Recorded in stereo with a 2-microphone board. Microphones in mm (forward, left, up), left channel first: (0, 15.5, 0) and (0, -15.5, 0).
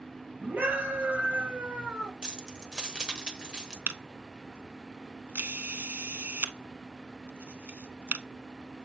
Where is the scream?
70° right (ahead or behind), 2.5 m; by 2.1 s 15° right (ahead or behind), 1.3 m.